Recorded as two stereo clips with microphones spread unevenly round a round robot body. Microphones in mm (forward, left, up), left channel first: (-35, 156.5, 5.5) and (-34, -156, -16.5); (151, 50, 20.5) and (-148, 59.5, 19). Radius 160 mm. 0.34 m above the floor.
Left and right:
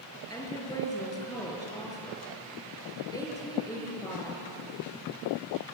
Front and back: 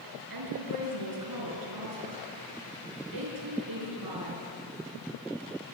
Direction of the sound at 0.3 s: 170° left.